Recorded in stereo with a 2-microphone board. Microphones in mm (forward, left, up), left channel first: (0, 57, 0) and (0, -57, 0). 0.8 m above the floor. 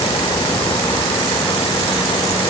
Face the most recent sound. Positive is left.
No sound to turn to.